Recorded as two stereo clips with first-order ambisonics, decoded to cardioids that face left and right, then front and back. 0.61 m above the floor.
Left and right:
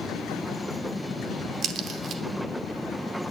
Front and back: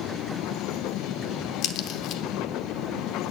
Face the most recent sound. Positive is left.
turn(degrees=-35)